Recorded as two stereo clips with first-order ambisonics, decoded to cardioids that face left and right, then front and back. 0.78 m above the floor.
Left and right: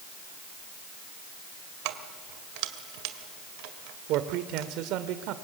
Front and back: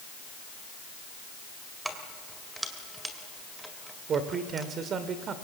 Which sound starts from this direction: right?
Keys jangling, at 1.9 s.